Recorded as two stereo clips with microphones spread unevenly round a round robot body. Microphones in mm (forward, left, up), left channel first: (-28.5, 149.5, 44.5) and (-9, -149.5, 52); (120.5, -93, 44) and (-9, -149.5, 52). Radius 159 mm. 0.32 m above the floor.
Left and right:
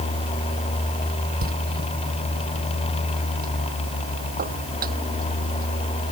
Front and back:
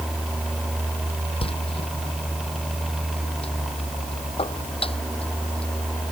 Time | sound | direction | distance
1.4 | a door slam | 25° right | ?